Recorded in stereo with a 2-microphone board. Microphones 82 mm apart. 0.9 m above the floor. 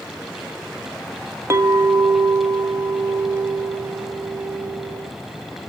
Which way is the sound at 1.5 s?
35° right (ahead or behind).